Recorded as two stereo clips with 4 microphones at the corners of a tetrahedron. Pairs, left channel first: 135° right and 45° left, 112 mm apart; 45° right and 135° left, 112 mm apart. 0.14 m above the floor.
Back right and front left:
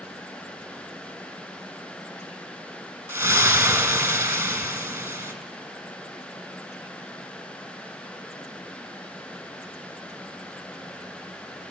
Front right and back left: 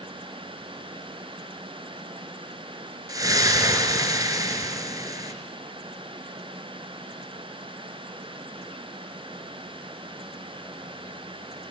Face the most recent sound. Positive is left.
turn(degrees=105)